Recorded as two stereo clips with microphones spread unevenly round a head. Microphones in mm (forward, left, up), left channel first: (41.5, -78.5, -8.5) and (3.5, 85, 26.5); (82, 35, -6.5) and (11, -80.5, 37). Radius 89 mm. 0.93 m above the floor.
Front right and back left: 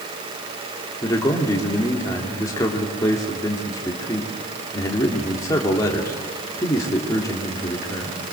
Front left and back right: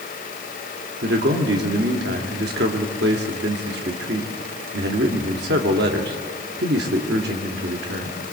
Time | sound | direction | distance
1.0 | a man speaking | 150° right | 2.5 m